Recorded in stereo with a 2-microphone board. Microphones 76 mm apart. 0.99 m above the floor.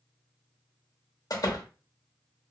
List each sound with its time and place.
1.3 s a door slam: 60° left (ahead or behind), 0.8 m